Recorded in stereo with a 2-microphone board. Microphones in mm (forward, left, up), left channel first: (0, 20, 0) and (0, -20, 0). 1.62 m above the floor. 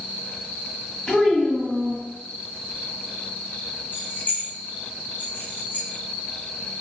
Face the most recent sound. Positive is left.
turn(degrees=50)  # may be behind; listen again after turning